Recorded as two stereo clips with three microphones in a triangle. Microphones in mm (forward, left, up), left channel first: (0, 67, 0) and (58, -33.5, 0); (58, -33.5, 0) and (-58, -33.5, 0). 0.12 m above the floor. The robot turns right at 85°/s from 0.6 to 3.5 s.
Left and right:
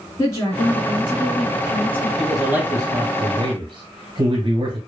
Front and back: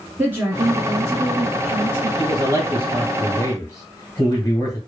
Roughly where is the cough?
No cough in this recording.